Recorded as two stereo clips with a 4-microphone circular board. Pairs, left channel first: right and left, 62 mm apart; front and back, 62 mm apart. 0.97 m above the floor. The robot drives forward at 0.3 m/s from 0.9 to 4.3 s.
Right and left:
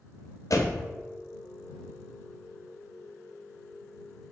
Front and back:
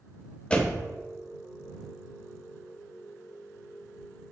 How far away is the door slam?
About 0.5 m.